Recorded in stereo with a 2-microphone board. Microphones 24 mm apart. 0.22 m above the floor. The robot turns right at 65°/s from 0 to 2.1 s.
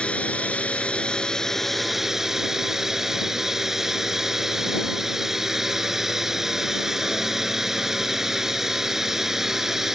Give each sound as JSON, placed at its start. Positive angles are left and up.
{"t": 0.0, "sound": "a drone", "azimuth_deg": 65}